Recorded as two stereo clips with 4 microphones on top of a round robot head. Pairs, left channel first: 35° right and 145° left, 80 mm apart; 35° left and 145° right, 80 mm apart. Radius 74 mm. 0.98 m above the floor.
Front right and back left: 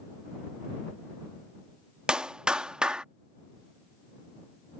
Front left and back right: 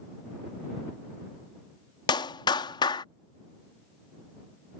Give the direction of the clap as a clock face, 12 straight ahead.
10 o'clock.